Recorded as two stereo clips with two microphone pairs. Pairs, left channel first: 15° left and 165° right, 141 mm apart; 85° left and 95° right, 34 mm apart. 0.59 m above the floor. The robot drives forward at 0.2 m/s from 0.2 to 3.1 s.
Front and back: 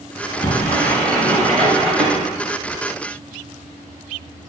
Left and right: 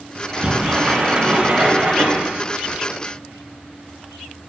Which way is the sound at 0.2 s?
55° right.